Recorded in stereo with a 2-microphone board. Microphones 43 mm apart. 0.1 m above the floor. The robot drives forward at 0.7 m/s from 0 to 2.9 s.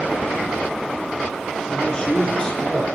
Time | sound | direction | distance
1.7 | a man speaking | 20° left (ahead or behind) | 1.4 m